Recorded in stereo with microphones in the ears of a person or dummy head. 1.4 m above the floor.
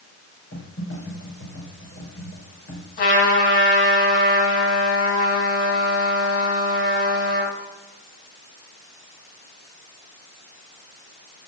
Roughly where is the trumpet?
Left.